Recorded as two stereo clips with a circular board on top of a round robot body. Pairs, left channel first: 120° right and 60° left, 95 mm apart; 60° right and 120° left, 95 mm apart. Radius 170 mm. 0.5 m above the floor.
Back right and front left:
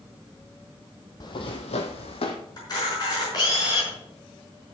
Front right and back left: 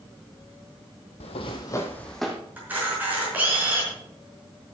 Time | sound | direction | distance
1.2 | footsteps | 70° right | 0.9 m
2.6 | a camera shutter | 165° right | 5 m